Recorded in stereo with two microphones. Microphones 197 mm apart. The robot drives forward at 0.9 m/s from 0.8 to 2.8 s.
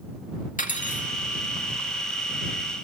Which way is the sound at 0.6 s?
40° left (ahead or behind).